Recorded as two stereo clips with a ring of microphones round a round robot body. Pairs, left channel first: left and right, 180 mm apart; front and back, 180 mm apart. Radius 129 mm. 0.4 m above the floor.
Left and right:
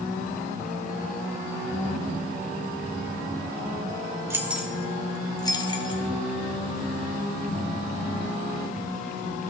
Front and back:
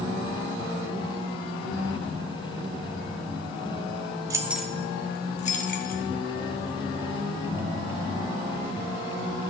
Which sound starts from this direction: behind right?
Keys jangling, at 4.3 s.